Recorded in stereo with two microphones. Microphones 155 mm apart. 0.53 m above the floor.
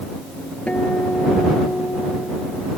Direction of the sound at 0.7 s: 10° left (ahead or behind).